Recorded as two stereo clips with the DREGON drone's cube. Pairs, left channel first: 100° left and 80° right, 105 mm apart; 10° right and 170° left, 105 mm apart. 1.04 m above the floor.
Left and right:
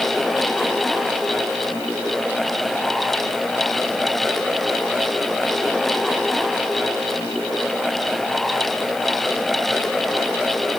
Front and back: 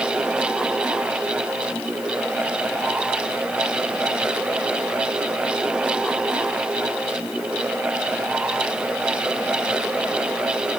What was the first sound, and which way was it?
Only background noise.